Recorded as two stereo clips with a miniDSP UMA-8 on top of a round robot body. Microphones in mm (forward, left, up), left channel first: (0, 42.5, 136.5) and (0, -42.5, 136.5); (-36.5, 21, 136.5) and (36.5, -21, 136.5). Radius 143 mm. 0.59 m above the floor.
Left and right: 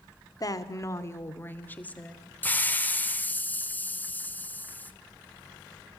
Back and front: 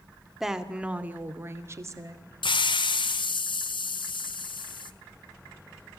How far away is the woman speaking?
About 2.5 m.